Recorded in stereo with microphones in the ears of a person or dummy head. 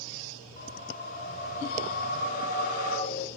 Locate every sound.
0.6 s a whoosh: 50° left (ahead or behind), 2.5 m